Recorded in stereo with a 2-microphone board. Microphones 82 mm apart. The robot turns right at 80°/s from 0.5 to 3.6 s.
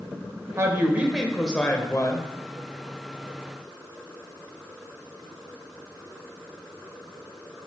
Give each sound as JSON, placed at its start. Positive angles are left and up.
{"t": 0.6, "sound": "a woman speaking", "azimuth_deg": -60, "distance_m": 1.0}